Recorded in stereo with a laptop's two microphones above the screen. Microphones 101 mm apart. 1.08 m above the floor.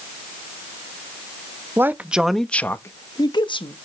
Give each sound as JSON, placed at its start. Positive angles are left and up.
{"t": 1.8, "sound": "a man speaking", "side_deg": -20, "distance_m": 1.2}